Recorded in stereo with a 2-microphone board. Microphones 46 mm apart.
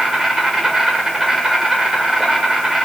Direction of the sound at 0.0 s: 10° right (ahead or behind).